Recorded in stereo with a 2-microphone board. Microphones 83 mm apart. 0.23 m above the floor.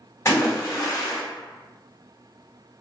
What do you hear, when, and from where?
0.2 s a splash: 30° left (ahead or behind), 1.7 m